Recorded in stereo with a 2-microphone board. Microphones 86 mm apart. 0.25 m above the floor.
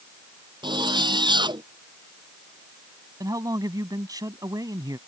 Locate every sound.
0.6 s a zipper: 70° right (ahead or behind)
3.2 s a man speaking: 50° right (ahead or behind)